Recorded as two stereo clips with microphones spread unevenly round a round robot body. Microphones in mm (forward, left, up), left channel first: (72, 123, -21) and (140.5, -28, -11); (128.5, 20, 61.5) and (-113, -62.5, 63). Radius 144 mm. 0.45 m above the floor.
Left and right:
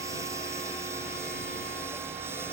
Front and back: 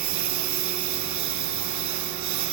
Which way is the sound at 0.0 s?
145° right.